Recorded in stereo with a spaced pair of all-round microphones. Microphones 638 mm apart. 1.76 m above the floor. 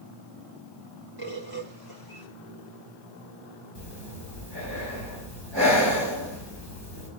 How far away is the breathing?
About 5.5 m.